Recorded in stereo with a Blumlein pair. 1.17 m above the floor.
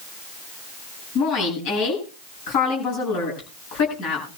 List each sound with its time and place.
1.1 s a woman speaking: 45° left, 8.5 m